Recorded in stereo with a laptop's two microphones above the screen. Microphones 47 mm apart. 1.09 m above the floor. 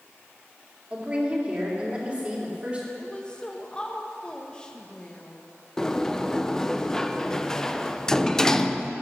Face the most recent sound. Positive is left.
turn(degrees=10)  # may be behind; listen again after turning